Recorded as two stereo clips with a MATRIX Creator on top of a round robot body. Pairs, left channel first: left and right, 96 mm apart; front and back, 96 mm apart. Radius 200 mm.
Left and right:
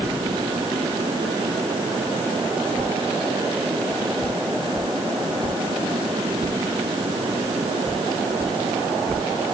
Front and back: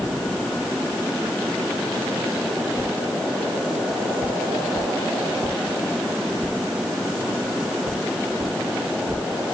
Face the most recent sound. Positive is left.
No sound to turn to.